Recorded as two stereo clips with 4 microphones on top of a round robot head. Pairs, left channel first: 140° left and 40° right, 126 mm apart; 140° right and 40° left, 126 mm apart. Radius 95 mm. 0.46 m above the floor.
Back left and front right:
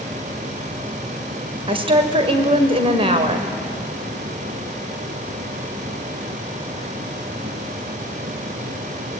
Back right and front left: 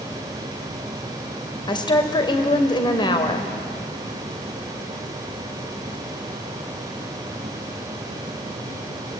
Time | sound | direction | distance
1.7 | a woman speaking | 85° right | 2 m